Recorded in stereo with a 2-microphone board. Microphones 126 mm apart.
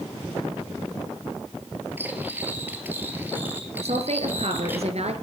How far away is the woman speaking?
About 2.5 m.